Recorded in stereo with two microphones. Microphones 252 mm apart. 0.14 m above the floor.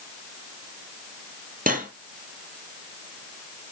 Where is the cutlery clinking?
35° right (ahead or behind), 2.0 m.